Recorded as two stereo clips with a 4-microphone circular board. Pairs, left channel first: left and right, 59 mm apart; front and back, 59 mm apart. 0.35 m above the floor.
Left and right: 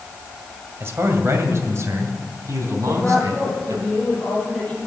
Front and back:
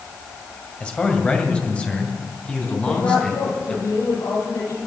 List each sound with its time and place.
0.8 s a man speaking: 60° right, 2 m; by 3.9 s 70° right, 4 m
2.9 s a woman speaking: 5° left, 8.5 m